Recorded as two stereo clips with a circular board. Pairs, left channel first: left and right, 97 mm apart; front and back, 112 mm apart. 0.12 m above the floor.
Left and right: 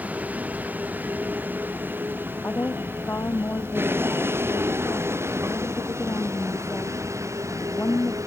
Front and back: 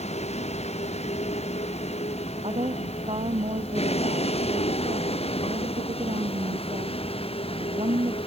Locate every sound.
0.0 s a vehicle: 15° right; by 8.3 s 35° right
2.4 s a woman speaking: 155° left